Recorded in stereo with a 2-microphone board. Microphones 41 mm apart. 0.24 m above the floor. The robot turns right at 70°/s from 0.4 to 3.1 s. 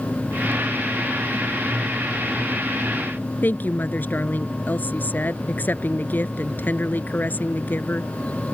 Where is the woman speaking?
50° left (ahead or behind).